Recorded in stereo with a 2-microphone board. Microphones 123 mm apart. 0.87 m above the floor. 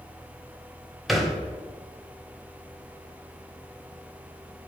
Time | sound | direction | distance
1.1 | a thud | centre (ahead or behind) | 1.0 m